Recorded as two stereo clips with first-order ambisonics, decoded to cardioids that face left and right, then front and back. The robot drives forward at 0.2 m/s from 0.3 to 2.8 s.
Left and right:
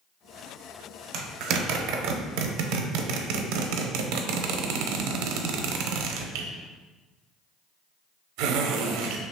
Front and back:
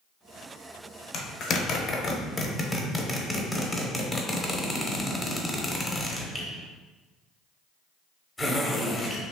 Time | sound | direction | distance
1.1 | a zipper | 50° right | 0.6 m